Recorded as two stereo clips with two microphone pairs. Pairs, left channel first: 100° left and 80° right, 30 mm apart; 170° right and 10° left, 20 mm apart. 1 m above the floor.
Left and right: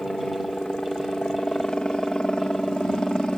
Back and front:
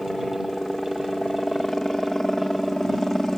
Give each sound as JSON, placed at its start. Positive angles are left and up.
{"t": 0.0, "sound": "a helicopter", "azimuth_deg": 145}